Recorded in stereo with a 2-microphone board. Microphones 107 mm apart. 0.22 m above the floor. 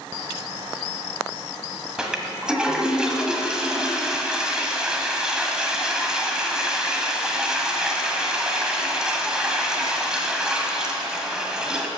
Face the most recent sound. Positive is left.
turn(degrees=-5)  # may be behind; listen again after turning